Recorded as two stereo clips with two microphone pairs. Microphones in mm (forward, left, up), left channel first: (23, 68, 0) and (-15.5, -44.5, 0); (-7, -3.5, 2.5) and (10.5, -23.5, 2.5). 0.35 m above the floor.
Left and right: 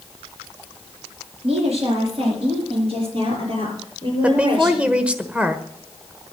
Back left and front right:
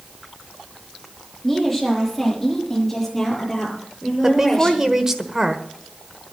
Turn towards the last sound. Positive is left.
turn(degrees=-50)